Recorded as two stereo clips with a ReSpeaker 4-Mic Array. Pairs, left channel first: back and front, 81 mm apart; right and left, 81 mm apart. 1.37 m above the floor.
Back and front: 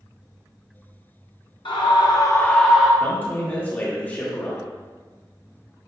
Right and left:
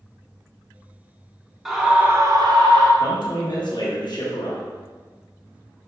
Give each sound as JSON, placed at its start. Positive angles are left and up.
{"t": 1.6, "sound": "a scream", "azimuth_deg": 180, "distance_m": 0.9}
{"t": 3.0, "sound": "a man speaking", "azimuth_deg": -115, "distance_m": 1.1}